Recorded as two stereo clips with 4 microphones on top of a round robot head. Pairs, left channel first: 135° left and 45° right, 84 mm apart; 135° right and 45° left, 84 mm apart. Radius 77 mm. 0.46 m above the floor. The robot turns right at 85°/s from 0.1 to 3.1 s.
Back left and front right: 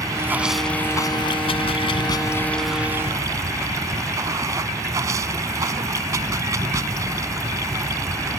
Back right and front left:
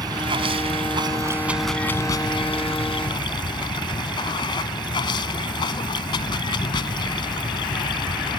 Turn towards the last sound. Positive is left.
turn(degrees=-100)